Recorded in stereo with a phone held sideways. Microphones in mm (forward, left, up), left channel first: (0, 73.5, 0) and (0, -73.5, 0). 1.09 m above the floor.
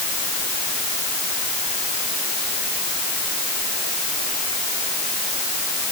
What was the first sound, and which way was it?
Only background noise.